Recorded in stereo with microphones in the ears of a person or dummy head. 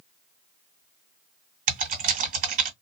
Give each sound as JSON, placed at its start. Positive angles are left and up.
{"t": 1.7, "sound": "typing on a keyboard", "side_deg": -55, "distance_m": 1.9}